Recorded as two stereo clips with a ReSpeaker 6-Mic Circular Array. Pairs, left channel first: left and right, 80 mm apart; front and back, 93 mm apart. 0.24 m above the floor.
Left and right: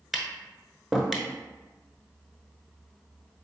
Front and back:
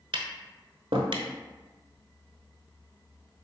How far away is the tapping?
About 0.7 m.